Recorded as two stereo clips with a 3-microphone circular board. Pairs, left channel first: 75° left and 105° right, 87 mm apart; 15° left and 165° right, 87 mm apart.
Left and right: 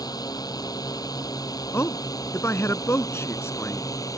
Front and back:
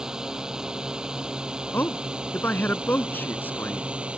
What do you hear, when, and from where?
0.0 s a drone: 115° left; by 4.2 s 120° left
1.7 s a man speaking: 60° left